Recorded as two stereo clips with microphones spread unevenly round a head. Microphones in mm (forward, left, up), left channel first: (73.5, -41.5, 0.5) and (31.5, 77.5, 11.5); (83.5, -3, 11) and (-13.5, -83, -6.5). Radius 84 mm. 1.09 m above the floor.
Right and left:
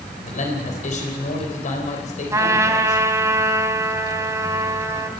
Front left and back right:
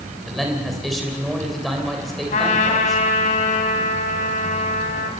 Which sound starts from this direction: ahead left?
A trumpet, at 2.3 s.